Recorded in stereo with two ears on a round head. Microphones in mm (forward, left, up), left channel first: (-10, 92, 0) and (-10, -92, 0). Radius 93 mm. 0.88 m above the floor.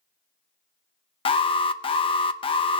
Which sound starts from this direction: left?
An alarm, at 1.2 s.